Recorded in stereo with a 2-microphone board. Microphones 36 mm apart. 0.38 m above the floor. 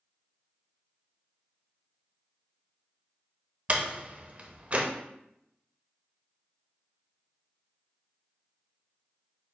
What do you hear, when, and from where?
3.7 s a door slam: 35° right (ahead or behind), 0.7 m